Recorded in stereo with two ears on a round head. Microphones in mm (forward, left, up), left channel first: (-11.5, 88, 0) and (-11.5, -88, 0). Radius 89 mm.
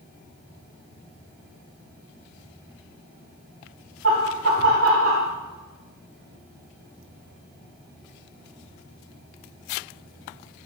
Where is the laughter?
75° right (ahead or behind), 1.9 m.